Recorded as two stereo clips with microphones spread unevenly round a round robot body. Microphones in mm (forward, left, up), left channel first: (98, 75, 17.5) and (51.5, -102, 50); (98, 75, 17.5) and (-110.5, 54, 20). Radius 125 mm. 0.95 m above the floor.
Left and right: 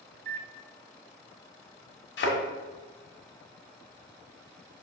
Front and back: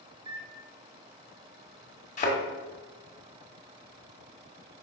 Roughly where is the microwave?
Behind right.